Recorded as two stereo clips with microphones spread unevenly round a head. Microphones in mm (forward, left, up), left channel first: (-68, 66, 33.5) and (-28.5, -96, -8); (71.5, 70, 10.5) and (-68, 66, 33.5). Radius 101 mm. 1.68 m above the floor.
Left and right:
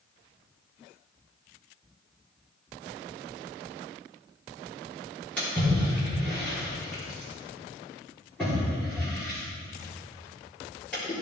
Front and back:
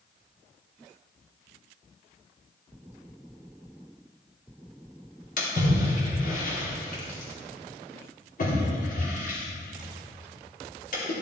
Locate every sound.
5.4 s a splash: 25° left, 3.5 m